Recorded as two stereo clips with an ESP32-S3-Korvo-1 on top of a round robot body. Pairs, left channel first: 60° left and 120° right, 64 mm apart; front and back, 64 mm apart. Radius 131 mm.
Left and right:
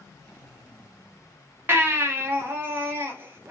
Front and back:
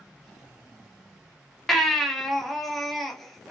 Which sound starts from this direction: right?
A baby crying, at 1.7 s.